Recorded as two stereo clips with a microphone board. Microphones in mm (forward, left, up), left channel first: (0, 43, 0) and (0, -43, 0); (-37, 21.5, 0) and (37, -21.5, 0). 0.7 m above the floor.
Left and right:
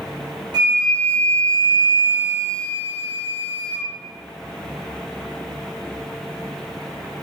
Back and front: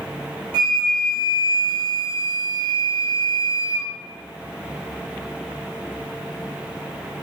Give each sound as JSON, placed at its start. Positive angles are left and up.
{"t": 0.5, "sound": "a flute", "azimuth_deg": -55, "distance_m": 0.8}